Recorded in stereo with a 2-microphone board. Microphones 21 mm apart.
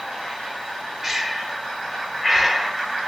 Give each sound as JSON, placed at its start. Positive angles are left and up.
{"t": 1.0, "sound": "breathing", "side_deg": -20, "distance_m": 0.5}